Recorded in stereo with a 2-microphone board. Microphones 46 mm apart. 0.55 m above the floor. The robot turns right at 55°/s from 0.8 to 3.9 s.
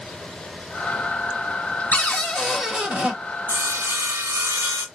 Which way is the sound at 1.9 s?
145° left.